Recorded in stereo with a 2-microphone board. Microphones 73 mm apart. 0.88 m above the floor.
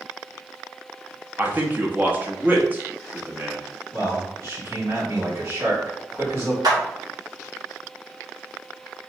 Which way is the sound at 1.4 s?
25° right (ahead or behind).